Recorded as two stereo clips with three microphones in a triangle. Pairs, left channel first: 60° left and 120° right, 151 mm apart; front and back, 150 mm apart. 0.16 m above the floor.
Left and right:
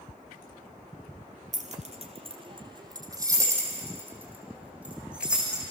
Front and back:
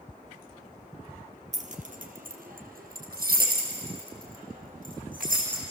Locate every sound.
1.5 s keys jangling: 150° right, 2.5 m; by 5.6 s 155° left, 7.5 m